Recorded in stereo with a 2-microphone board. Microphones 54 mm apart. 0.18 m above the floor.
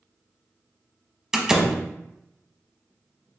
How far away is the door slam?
About 0.7 m.